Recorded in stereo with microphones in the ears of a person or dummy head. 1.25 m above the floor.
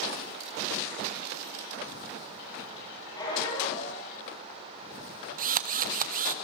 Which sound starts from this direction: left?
A squeak, at 3.2 s.